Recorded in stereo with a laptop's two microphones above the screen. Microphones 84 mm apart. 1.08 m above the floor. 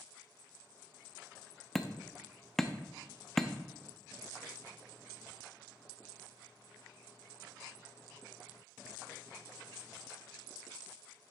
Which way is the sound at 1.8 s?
5° left (ahead or behind).